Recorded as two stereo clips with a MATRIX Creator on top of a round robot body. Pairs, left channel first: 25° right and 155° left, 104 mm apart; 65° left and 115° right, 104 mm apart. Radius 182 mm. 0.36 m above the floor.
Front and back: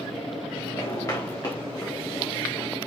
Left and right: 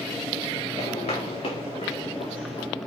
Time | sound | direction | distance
0.8 | footsteps | 40° left | 4 m